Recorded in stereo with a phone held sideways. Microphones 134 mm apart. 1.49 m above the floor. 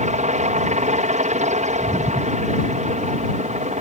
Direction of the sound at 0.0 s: 65° right (ahead or behind).